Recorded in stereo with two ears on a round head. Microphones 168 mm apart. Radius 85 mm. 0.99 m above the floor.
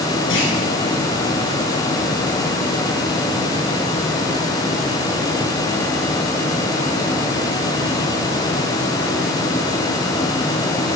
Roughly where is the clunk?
Left.